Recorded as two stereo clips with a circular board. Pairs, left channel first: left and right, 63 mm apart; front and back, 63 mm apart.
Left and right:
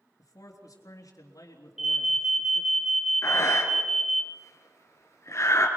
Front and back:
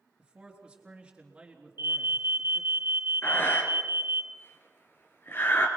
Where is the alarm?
170° right, 1.6 m.